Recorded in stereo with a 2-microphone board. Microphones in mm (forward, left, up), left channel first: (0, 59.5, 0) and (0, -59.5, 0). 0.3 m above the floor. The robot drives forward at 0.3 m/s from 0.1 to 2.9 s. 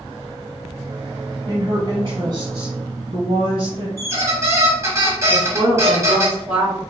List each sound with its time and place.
1.5 s a woman speaking: 45° right (ahead or behind), 1.4 m; by 3.9 s 50° right (ahead or behind), 1.3 m
4.0 s a squeak: 25° right (ahead or behind), 1.0 m
5.3 s a woman speaking: 25° right (ahead or behind), 1.5 m